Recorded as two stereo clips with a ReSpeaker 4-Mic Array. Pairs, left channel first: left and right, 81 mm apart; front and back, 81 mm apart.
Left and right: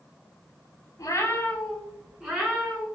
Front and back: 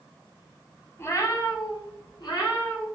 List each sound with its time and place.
1.0 s a cat meowing: 55° left, 0.6 m; by 2.9 s 15° right, 1.5 m